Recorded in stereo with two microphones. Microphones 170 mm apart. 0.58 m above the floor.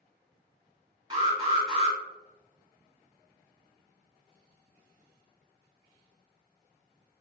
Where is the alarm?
25° right (ahead or behind), 1.3 m.